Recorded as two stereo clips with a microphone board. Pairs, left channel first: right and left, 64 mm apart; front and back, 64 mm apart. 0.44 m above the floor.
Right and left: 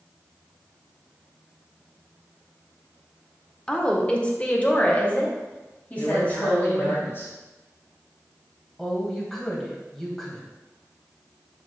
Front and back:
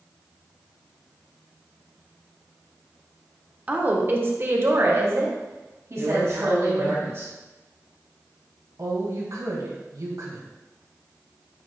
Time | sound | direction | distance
3.7 | a woman speaking | 150° right | 0.9 m
6.0 | a man speaking | 135° right | 3 m
8.8 | a woman speaking | 170° right | 2 m